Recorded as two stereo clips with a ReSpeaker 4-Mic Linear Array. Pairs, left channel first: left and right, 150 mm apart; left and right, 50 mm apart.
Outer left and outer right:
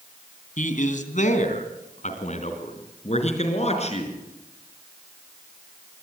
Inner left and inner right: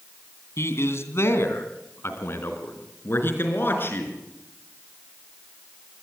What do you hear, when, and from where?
0.6 s a man speaking: 60° left (ahead or behind), 2.5 m; by 4.2 s 45° left (ahead or behind), 4.5 m